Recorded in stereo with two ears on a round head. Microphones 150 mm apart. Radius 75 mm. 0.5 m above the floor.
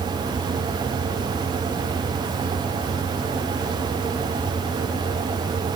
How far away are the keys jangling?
No keys jangling in this recording.